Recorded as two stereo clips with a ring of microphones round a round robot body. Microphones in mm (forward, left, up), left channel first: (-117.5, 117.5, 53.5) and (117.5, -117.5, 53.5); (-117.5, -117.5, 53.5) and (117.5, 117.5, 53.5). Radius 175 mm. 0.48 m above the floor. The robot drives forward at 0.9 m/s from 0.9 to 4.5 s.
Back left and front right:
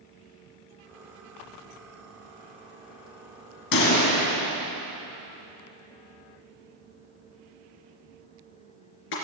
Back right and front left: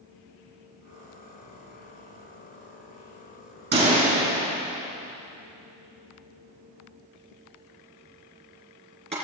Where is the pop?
110° left, 3 m; by 9.1 s 120° left, 3.5 m.